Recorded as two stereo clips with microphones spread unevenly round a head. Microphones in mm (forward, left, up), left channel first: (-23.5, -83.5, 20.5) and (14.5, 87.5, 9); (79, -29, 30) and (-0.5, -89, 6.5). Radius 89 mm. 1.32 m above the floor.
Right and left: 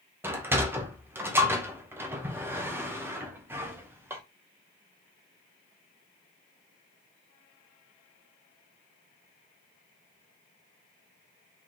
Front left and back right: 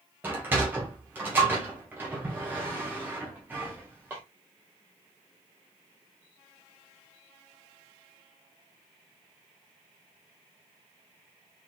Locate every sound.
0.2 s a sliding door: 150° left, 0.9 m